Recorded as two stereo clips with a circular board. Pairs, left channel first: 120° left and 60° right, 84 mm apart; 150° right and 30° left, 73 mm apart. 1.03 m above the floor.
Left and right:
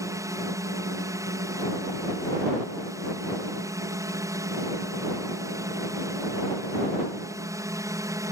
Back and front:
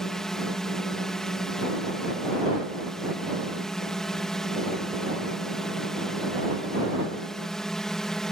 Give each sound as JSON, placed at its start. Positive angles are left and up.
{"t": 0.0, "sound": "a drone", "azimuth_deg": -70}